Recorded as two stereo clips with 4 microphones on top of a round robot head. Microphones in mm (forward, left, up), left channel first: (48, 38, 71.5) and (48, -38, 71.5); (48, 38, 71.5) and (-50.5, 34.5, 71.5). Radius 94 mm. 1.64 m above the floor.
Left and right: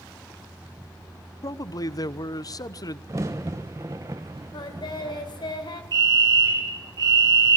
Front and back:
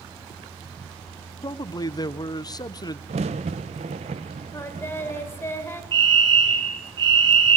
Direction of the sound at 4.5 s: 65° left.